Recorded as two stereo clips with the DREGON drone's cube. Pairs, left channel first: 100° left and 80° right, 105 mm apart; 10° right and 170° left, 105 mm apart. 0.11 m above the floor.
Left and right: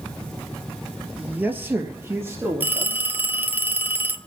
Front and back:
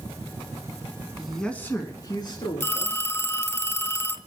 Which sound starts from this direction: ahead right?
A phone ringing, at 2.6 s.